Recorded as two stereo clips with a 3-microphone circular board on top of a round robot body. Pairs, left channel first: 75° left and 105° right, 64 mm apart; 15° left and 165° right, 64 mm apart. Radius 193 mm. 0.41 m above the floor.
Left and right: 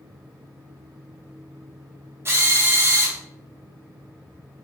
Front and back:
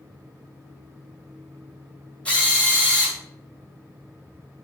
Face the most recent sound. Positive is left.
turn(degrees=-55)